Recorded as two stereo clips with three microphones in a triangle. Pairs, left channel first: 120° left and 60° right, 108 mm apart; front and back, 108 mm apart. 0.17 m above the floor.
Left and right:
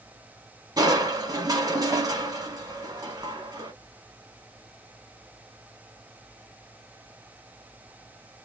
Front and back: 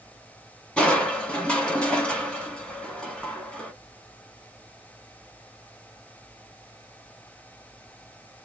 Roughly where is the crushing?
Right.